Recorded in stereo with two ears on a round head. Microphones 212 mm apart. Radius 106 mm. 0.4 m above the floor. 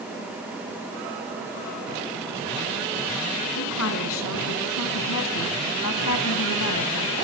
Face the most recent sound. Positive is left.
turn(degrees=70)  # may be behind; listen again after turning